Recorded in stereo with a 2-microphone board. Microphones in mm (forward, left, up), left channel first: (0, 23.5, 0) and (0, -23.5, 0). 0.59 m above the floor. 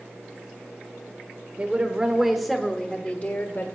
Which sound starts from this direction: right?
A woman speaking, at 1.6 s.